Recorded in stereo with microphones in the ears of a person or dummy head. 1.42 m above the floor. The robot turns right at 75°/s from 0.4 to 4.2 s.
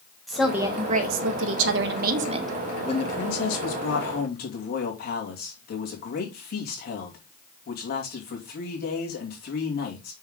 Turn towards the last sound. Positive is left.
turn(degrees=135)